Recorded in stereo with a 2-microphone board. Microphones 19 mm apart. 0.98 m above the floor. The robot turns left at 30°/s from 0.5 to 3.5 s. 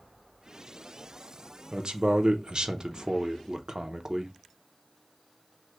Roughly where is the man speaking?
Right.